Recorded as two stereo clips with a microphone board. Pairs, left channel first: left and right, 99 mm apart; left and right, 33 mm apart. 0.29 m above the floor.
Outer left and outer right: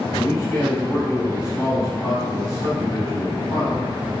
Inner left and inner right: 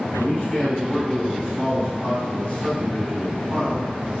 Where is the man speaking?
40° left (ahead or behind), 1.2 m.